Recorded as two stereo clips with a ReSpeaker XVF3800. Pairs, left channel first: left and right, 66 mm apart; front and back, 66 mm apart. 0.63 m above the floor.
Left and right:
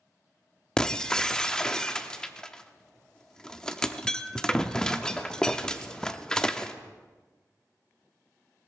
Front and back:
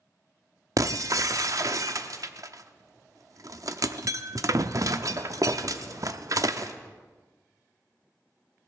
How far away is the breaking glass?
About 0.6 m.